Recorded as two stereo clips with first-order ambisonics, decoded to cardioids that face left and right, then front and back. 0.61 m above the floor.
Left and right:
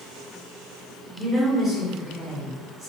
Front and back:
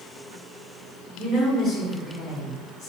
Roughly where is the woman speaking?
Ahead.